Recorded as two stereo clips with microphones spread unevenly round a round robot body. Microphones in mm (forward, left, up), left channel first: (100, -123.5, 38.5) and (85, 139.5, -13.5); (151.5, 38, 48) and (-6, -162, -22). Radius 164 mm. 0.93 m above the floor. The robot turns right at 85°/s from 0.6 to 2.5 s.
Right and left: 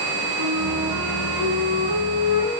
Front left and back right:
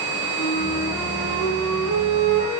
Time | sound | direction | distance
0.3 | a flute | 85° left | 4 m